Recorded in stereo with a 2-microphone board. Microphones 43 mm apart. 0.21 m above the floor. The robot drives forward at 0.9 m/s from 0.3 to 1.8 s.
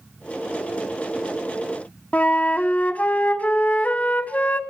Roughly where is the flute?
Left.